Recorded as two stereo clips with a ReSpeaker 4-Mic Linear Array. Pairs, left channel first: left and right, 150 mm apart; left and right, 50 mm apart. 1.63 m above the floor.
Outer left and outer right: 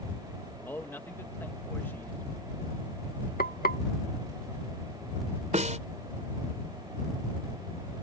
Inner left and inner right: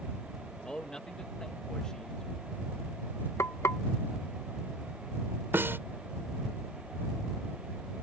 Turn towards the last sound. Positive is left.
turn(degrees=-50)  # may be behind; listen again after turning